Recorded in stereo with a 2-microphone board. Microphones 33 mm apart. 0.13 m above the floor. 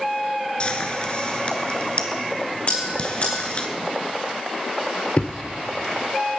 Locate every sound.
0.6 s frying: 35° left (ahead or behind), 1.5 m
2.7 s a bell: 50° left (ahead or behind), 4.5 m
5.2 s a thud: 40° left (ahead or behind), 1.4 m